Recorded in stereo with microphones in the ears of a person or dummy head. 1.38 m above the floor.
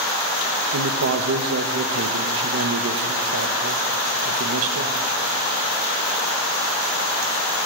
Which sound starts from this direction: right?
A man speaking, at 0.7 s.